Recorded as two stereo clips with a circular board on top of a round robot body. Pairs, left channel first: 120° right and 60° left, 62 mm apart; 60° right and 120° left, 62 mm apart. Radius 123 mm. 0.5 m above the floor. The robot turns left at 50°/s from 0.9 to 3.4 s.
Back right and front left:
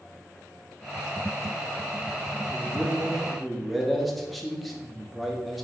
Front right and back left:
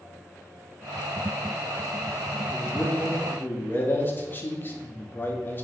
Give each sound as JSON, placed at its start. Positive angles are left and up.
{"t": 2.5, "sound": "a man speaking", "azimuth_deg": 15, "distance_m": 1.5}